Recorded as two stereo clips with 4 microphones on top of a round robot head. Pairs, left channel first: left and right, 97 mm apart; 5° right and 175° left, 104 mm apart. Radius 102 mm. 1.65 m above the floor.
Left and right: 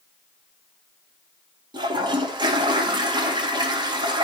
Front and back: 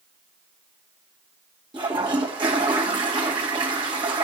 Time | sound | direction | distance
1.7 | a toilet flushing | 130° right | 2 m